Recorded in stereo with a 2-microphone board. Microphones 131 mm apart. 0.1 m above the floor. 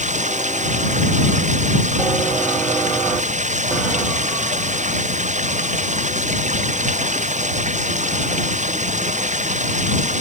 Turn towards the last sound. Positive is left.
turn(degrees=-65)  # may be behind; listen again after turning